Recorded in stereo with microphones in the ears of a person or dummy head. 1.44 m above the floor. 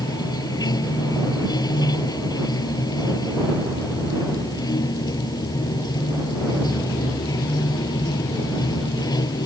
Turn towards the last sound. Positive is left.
turn(degrees=25)  # may be behind; listen again after turning